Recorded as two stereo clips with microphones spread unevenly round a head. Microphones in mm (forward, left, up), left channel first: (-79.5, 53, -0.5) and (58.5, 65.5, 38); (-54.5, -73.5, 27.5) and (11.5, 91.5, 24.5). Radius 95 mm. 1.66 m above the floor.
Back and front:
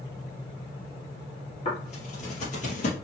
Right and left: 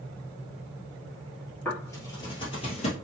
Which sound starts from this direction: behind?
Footsteps, at 1.6 s.